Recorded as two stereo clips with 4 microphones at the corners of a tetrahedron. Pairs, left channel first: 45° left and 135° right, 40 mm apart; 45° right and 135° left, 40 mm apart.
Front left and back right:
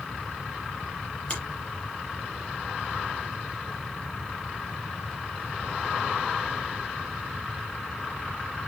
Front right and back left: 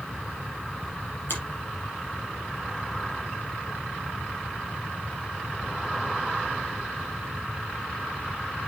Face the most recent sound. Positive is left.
turn(degrees=-20)